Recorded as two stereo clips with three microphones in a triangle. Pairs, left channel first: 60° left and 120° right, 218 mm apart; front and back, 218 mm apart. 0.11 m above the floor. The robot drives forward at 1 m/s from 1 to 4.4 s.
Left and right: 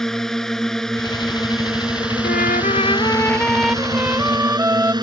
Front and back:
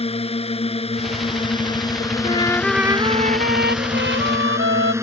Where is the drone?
25° right; by 5.0 s 130° right.